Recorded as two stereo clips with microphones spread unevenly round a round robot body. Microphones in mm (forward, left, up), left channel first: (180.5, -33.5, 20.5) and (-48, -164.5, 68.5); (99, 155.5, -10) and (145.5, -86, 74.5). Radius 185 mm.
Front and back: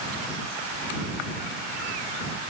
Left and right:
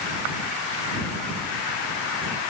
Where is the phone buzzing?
No phone buzzing in this recording.